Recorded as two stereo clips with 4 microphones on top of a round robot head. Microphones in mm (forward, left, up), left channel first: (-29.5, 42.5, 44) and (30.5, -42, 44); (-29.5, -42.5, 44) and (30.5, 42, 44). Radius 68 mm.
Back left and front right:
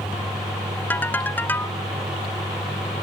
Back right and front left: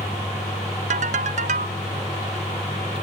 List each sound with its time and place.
0.9 s a ringtone: 50° left